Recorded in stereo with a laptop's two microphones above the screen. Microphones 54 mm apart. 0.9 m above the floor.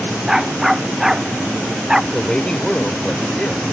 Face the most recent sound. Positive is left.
turn(degrees=15)  # may be behind; listen again after turning